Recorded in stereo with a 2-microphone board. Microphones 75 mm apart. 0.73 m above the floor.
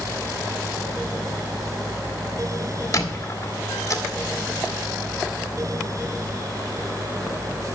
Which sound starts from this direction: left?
A squeak, at 2.9 s.